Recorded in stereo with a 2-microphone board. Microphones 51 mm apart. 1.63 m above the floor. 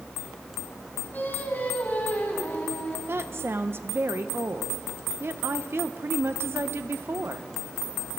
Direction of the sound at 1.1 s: 40° left (ahead or behind).